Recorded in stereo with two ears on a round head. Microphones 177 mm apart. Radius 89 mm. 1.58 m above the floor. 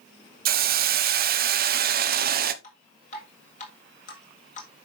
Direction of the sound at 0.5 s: 50° right (ahead or behind).